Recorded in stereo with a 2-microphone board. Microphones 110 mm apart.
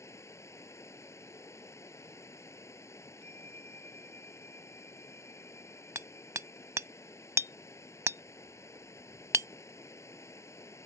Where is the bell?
80° right.